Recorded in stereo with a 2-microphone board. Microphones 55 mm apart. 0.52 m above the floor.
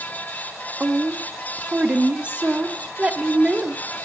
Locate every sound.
0.8 s a woman speaking: 25° right (ahead or behind), 0.7 m